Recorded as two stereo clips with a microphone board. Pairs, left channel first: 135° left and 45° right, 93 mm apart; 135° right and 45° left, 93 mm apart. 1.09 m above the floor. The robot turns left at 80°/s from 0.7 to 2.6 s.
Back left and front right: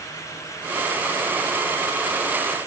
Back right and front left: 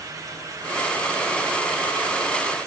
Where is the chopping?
No chopping in this recording.